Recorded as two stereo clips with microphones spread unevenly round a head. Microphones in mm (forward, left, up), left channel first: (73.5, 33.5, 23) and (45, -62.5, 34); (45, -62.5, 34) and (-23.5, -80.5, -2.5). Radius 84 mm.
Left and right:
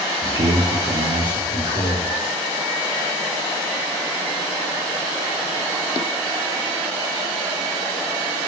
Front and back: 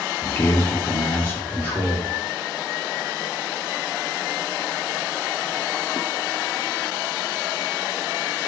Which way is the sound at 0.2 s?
60° right.